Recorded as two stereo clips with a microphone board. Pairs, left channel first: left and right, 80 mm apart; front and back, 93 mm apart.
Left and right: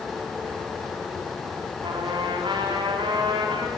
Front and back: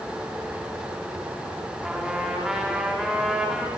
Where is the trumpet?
95° right, 4.5 m.